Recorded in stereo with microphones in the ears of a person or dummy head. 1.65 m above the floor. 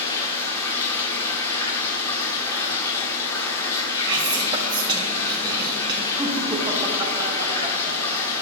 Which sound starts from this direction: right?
Whispering, at 4.1 s.